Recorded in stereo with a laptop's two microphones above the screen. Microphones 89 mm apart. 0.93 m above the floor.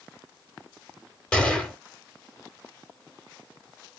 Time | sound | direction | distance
1.3 | a gunshot | 10° left (ahead or behind) | 0.9 m